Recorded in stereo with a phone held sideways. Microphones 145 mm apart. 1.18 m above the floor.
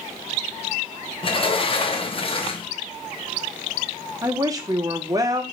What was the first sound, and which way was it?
A sliding door, 40° left (ahead or behind).